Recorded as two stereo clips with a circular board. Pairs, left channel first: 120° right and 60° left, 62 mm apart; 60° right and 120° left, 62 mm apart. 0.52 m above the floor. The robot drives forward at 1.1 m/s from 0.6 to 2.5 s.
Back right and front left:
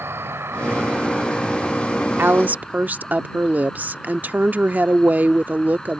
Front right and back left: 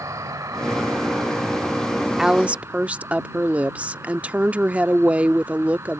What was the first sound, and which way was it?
An insect, 105° left.